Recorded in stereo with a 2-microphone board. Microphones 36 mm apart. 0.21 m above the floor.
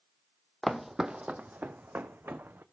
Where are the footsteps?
10° left (ahead or behind), 0.5 m; by 2.6 s 80° right, 1.1 m.